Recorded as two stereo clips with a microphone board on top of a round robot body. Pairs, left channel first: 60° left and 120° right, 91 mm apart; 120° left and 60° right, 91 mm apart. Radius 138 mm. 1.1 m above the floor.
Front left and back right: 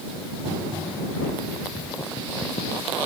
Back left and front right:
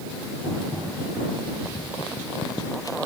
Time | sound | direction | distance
1.6 | footsteps | 60° left | ?